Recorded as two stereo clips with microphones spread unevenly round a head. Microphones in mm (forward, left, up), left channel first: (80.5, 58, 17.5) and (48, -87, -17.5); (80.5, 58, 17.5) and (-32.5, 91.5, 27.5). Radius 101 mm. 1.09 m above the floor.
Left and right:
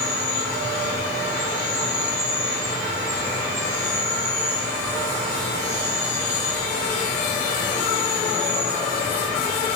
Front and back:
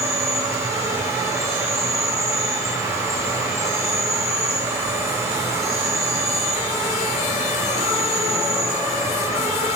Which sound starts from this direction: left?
An insect, at 0.0 s.